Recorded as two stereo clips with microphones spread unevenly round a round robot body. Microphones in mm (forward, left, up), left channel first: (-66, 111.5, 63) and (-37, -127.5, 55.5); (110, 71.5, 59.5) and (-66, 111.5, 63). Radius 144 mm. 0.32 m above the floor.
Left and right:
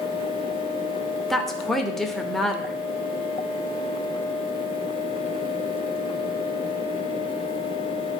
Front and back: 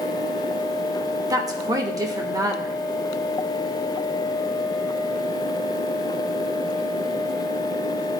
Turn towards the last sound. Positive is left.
turn(degrees=-170)